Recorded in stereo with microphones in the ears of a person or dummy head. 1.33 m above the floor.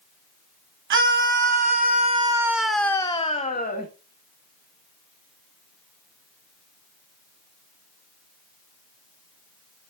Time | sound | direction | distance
0.9 | a scream | 65° right (ahead or behind) | 1.4 m